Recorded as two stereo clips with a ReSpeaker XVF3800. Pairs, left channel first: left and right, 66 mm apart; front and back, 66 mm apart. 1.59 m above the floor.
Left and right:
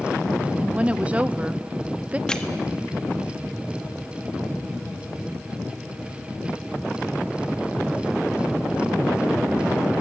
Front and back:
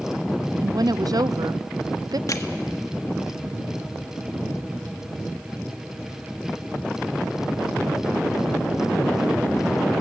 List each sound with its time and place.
0.6 s a woman speaking: 160° right, 0.6 m
2.3 s crushing: 15° left, 1.4 m